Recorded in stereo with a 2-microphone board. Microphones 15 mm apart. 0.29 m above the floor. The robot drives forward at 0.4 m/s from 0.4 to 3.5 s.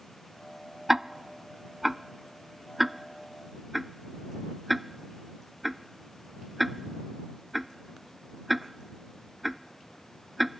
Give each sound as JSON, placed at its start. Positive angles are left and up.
{"t": 0.9, "sound": "ticking", "side_deg": -25}